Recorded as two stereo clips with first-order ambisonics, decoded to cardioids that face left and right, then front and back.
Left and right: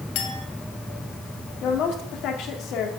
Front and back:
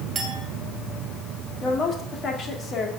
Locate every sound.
0.1 s a clink: 110° left, 2.5 m
1.6 s a woman speaking: 55° left, 2 m